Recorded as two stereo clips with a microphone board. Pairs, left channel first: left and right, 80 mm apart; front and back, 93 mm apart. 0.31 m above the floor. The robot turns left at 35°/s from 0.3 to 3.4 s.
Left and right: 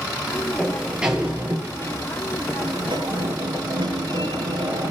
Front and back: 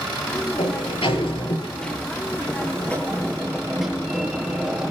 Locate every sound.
0.6 s a sliding door: 5° left, 6.5 m; by 4.9 s 95° right, 6.5 m